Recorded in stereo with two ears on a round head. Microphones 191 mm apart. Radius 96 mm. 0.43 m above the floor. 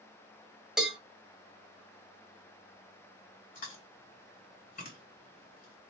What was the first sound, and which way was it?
A cowbell, 5° right (ahead or behind).